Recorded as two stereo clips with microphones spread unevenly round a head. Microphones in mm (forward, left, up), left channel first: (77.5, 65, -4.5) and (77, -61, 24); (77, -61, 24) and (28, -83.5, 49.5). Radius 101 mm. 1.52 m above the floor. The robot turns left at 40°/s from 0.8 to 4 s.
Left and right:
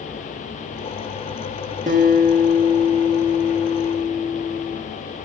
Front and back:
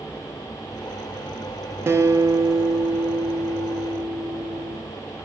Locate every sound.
1.9 s a guitar: 130° right, 1.0 m; by 4.8 s 145° left, 1.0 m